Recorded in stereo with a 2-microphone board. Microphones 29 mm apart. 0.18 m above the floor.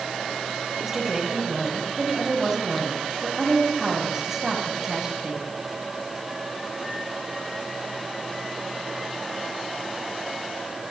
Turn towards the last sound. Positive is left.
turn(degrees=-10)  # may be behind; listen again after turning